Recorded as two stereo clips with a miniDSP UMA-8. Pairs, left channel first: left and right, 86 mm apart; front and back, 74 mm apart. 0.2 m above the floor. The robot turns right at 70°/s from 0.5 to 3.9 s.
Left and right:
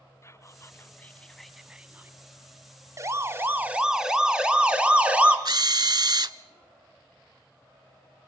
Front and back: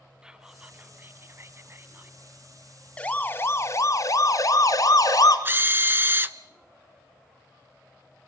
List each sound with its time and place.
0.2 s whispering: 110° left, 1.9 m; by 2.2 s 135° right, 1.9 m
3.0 s a siren: 65° right, 2 m; by 5.3 s 20° right, 3 m
5.5 s a drill: 120° right, 0.9 m